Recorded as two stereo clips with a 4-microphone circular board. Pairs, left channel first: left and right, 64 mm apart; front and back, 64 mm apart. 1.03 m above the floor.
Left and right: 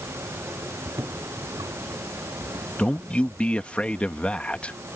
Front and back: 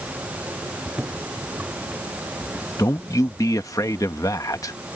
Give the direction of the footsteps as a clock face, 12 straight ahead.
4 o'clock.